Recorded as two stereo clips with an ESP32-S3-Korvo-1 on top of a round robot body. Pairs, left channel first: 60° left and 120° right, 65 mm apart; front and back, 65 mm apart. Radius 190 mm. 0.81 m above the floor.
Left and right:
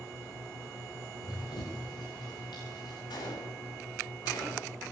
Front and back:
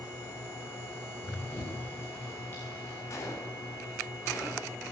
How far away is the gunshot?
About 8 m.